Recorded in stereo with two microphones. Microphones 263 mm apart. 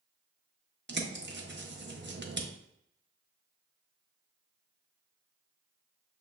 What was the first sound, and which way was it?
A bird, 45° right (ahead or behind).